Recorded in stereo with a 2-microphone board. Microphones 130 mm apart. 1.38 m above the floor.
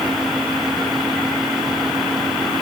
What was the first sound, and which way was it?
Only background noise.